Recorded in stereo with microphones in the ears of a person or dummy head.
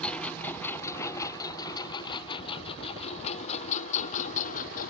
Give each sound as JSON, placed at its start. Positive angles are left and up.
{"t": 0.0, "sound": "a lawn mower", "side_deg": 5}